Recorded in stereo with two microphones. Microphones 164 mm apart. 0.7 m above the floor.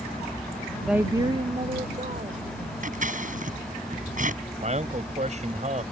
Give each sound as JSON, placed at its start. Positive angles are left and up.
{"t": 0.9, "sound": "a woman speaking", "side_deg": 0}
{"t": 2.8, "sound": "scissors", "side_deg": -55}
{"t": 4.6, "sound": "a man speaking", "side_deg": -45}